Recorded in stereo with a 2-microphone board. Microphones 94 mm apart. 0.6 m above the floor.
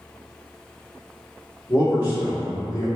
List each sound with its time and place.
1.7 s a man speaking: 30° left (ahead or behind), 1.5 m